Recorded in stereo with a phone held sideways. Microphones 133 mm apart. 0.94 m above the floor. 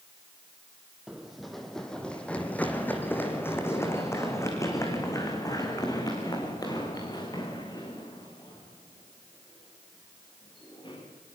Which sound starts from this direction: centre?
Running footsteps, at 1.1 s.